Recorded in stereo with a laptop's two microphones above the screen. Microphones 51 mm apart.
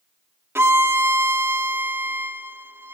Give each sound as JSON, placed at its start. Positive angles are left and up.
{"t": 0.6, "sound": "a violin", "side_deg": -55, "distance_m": 0.5}